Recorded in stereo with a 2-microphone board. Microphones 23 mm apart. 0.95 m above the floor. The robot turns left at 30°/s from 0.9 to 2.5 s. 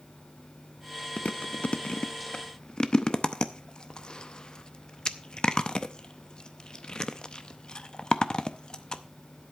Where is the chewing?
80° left, 0.6 m; by 9.0 s 40° left (ahead or behind), 0.6 m.